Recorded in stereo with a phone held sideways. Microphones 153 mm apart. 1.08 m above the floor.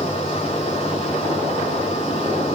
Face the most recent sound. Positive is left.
turn(degrees=45)  # may be behind; listen again after turning